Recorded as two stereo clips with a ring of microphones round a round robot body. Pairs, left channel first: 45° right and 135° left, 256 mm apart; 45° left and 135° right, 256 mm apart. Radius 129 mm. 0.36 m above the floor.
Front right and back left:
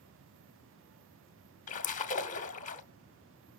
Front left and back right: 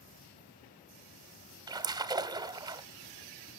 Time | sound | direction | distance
1.7 | a splash | 75° right | 0.8 m